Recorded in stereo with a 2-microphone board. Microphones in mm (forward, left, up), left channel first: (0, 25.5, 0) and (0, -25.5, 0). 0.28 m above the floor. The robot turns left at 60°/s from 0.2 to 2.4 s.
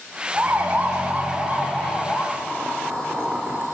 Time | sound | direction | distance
0.3 | a siren | 30° right (ahead or behind) | 2.5 m
2.3 | boiling | 20° right (ahead or behind) | 4.5 m